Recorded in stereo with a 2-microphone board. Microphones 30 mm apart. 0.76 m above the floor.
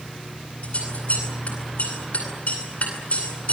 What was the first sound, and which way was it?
Scissors, 50° left (ahead or behind).